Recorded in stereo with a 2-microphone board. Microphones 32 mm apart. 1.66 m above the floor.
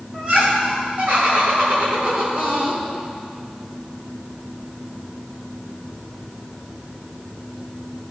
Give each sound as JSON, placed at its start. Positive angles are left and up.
{"t": 0.1, "sound": "laughter", "side_deg": -45, "distance_m": 2.5}